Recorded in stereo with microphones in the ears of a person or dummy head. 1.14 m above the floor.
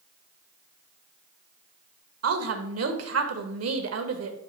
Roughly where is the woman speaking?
Right.